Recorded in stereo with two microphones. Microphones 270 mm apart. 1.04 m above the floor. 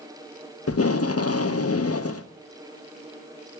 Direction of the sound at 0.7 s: 60° left (ahead or behind).